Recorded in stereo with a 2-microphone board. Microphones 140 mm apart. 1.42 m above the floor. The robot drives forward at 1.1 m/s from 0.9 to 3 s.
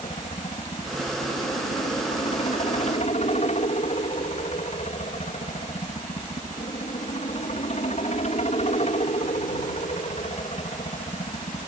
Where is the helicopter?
50° left (ahead or behind); by 11.7 s 55° left (ahead or behind).